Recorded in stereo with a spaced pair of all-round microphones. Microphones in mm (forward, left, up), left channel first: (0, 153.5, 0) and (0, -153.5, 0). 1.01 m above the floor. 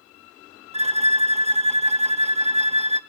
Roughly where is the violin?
Right.